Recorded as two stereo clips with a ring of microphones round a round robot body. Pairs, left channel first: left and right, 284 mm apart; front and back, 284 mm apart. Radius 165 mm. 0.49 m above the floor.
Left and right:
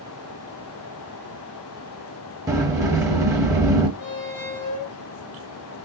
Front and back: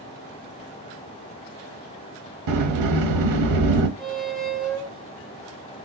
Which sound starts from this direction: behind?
A sliding door, at 2.5 s.